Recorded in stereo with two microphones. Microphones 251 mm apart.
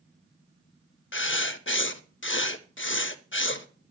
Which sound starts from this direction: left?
Writing, at 1.1 s.